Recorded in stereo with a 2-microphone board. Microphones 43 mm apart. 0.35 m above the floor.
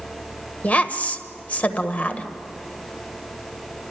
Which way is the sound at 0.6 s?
35° left (ahead or behind).